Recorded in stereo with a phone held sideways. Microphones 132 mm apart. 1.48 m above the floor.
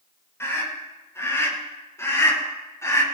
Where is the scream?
20° left (ahead or behind), 7.5 m.